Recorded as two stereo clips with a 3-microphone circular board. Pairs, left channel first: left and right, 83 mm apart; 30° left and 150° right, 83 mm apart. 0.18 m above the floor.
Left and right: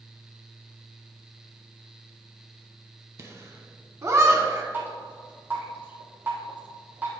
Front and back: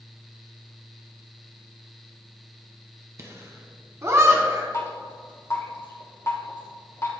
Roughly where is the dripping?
Ahead right.